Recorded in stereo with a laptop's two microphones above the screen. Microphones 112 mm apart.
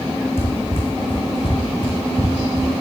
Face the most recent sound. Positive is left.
turn(degrees=40)  # may be behind; listen again after turning